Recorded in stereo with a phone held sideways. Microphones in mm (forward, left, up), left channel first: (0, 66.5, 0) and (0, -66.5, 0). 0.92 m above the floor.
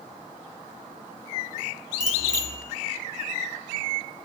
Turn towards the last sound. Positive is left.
turn(degrees=-65)  # may be behind; listen again after turning